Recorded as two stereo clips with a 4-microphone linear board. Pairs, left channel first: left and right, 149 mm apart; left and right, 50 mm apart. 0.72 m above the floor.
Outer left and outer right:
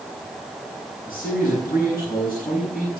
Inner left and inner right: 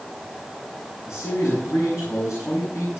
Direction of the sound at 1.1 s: 70° left (ahead or behind).